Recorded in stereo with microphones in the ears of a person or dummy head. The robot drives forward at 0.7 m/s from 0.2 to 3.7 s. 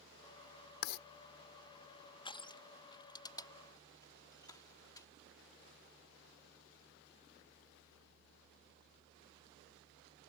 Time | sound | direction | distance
0.8 | writing | 60° left (ahead or behind) | ?
2.2 | crushing | 25° left (ahead or behind) | ?